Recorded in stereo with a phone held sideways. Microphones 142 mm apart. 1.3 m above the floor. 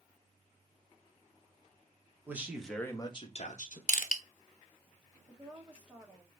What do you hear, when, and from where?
2.3 s a man speaking: 15° right (ahead or behind), 1.5 m; by 3.8 s 65° left (ahead or behind), 1.5 m
3.9 s crushing: 65° left (ahead or behind), 0.7 m
5.3 s a woman speaking: 10° right (ahead or behind), 1.4 m